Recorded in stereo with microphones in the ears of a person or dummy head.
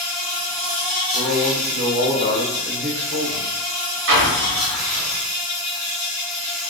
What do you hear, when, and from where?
0.0 s an insect: 45° right (ahead or behind), 1.3 m
1.1 s a man speaking: 55° right (ahead or behind), 0.7 m
4.1 s an explosion: 65° right (ahead or behind), 0.9 m